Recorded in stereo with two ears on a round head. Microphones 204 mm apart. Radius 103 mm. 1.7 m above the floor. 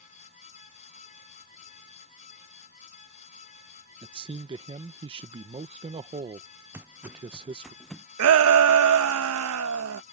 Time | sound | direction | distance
4.0 | a man speaking | 25° right (ahead or behind) | ?
6.7 | footsteps | 10° right (ahead or behind) | ?
8.2 | a shout | 70° right (ahead or behind) | ?